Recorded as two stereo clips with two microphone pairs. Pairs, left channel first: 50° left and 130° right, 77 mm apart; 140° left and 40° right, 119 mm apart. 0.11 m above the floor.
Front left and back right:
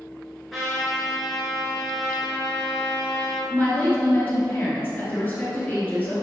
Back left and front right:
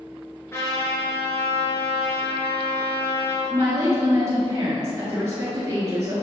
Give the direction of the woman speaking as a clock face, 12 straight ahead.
12 o'clock.